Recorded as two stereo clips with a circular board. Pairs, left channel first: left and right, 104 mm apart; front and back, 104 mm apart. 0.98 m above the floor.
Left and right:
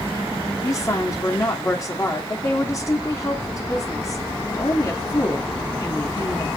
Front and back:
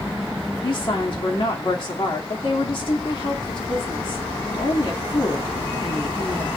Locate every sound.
0.6 s a woman speaking: 35° left, 2.5 m